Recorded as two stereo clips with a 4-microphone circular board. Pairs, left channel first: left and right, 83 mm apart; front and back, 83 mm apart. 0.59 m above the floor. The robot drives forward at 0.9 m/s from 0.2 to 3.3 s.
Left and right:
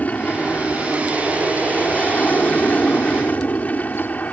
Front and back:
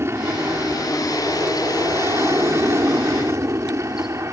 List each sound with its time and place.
0.0 s an aircraft: 150° left; by 4.3 s 155° left